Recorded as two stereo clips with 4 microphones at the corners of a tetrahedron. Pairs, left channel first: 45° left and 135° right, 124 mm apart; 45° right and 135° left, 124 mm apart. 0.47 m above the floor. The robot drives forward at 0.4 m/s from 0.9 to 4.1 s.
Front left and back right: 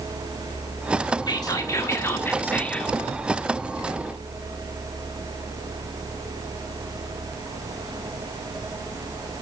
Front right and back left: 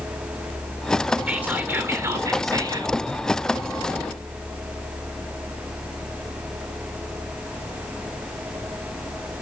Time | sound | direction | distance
1.3 | whispering | 70° left | 1.2 m